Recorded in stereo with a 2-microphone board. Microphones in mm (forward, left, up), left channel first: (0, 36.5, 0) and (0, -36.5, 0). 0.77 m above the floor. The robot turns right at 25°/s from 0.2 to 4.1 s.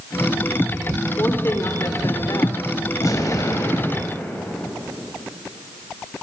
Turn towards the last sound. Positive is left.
turn(degrees=30)  # may be behind; listen again after turning